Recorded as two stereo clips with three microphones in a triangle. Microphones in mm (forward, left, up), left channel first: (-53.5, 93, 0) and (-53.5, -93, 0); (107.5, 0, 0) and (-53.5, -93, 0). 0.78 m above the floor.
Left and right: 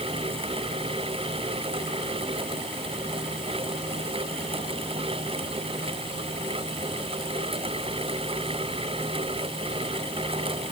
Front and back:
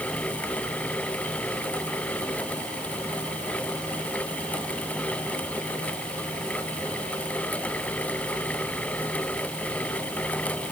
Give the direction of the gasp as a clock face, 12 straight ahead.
I don't hear a gasp.